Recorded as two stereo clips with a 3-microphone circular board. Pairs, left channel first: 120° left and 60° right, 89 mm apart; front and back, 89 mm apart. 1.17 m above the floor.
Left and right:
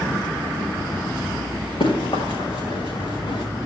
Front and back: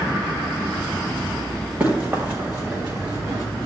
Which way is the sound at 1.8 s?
110° left.